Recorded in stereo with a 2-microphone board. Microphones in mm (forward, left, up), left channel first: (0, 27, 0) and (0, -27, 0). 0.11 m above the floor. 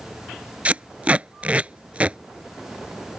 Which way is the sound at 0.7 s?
25° right (ahead or behind).